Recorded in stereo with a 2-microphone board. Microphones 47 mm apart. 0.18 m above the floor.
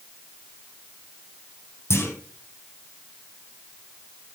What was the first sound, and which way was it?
A clunk, 70° left (ahead or behind).